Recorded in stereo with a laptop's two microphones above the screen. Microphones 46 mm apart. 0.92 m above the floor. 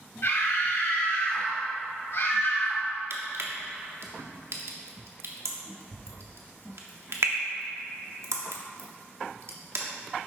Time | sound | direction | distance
0.2 | a scream | 60° left (ahead or behind) | 2.5 m
3.1 | crushing | 70° right (ahead or behind) | 1.2 m